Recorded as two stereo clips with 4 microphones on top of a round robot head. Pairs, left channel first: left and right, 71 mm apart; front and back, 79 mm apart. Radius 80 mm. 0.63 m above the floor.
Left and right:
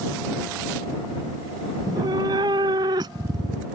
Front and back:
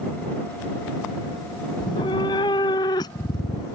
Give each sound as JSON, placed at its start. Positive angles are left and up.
{"t": 1.8, "sound": "a cat meowing", "azimuth_deg": -45}